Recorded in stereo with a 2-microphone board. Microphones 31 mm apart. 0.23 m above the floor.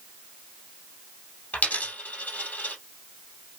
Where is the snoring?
No snoring in this recording.